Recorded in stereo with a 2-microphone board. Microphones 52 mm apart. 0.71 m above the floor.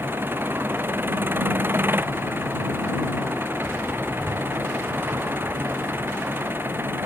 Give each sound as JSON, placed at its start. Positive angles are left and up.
{"t": 0.0, "sound": "an engine running", "side_deg": -40}